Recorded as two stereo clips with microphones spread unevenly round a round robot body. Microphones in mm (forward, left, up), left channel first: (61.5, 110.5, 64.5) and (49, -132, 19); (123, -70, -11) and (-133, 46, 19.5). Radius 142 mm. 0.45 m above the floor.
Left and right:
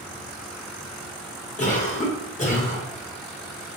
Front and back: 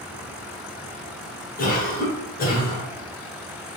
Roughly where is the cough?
Ahead left.